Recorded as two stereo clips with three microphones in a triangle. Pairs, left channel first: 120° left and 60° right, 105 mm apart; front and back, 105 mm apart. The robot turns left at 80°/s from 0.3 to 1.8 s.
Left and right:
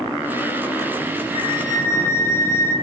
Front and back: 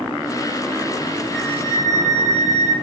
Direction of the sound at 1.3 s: 90° left.